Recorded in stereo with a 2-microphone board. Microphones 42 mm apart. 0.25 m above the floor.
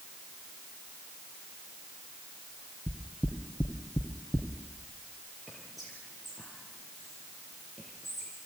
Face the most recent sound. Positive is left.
turn(degrees=0)  # may be behind; listen again after turning